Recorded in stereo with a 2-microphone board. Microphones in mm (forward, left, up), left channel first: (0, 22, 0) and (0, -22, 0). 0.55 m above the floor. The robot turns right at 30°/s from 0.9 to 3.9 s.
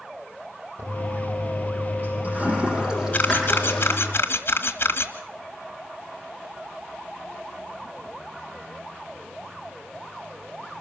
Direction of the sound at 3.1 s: 35° left (ahead or behind).